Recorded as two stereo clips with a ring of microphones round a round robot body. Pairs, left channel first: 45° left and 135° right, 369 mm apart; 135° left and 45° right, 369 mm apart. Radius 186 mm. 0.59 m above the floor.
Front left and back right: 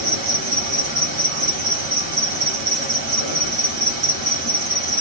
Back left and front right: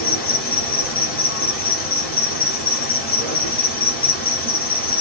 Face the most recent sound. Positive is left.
turn(degrees=-165)